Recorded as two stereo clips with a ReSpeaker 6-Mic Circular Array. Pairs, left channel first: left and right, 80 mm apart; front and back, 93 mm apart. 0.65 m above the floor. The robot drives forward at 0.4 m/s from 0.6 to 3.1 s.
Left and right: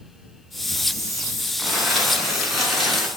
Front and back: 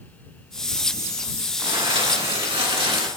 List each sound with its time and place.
1.6 s crumpling: 175° right, 2.5 m